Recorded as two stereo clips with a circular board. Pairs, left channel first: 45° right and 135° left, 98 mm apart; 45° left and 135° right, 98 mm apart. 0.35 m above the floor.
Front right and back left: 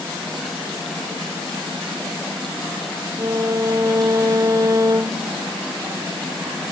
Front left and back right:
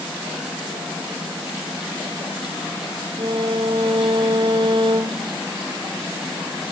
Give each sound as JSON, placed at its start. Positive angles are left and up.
{"t": 3.2, "sound": "a violin", "azimuth_deg": -170}